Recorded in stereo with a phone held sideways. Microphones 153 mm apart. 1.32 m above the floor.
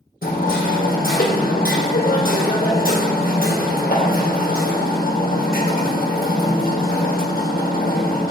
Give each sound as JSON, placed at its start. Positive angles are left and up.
{"t": 0.2, "sound": "hammering", "side_deg": 75, "distance_m": 1.3}